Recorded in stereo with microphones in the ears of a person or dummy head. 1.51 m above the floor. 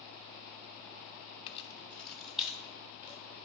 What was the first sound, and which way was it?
Keys jangling, 40° left (ahead or behind).